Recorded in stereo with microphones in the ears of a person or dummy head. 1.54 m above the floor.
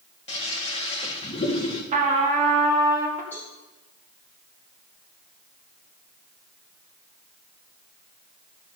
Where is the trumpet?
40° right (ahead or behind), 1.8 m.